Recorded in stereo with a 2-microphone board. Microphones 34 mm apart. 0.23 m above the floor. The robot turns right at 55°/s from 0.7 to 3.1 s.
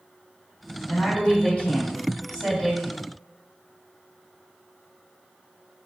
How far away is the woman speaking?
About 1.7 m.